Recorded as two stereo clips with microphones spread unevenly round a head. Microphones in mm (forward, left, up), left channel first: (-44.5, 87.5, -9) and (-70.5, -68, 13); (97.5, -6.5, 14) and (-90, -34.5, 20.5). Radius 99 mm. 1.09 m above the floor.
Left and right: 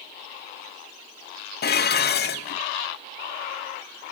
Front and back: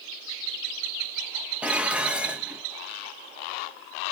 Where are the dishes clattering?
105° left, 0.6 m.